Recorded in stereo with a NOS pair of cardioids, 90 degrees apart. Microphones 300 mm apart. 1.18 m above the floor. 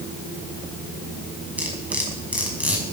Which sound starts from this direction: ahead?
Cutlery clinking, at 1.6 s.